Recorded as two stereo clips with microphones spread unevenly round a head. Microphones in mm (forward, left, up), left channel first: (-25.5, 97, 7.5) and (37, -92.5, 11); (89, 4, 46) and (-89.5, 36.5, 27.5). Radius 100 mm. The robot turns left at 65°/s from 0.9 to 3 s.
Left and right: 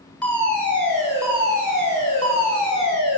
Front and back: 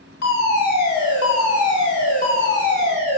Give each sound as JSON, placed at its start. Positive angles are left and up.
{"t": 0.2, "sound": "a fire alarm", "azimuth_deg": 25, "distance_m": 10.0}